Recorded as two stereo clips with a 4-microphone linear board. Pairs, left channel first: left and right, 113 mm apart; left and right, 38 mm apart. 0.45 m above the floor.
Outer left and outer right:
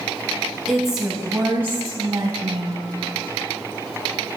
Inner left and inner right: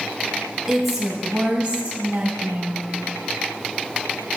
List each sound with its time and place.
0.7 s a woman speaking: centre (ahead or behind), 2.5 m; by 2.9 s 45° right (ahead or behind), 2.5 m